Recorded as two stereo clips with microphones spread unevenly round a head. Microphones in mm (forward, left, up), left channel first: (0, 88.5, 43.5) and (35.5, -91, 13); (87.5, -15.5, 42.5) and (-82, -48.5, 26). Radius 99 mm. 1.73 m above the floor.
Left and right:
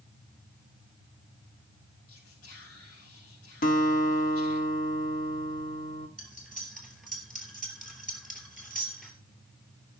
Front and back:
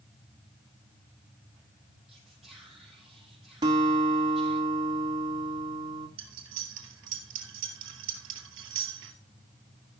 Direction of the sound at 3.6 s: 120° left.